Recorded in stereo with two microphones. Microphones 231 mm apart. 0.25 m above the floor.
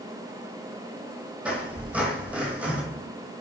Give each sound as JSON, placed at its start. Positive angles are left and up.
{"t": 1.4, "sound": "a squeak", "side_deg": -5, "distance_m": 1.1}